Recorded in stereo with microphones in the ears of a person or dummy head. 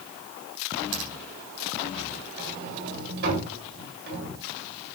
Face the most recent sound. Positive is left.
turn(degrees=-55)  # may be behind; listen again after turning